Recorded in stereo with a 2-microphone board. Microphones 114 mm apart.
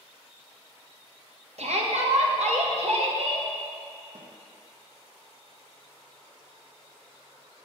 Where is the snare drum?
70° right (ahead or behind), 1.6 m.